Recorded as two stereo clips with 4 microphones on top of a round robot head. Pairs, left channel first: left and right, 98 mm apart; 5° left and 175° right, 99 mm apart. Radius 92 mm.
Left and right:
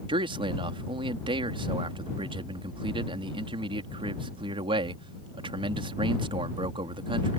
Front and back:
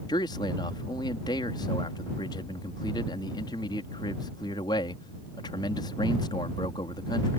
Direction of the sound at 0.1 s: 55° right.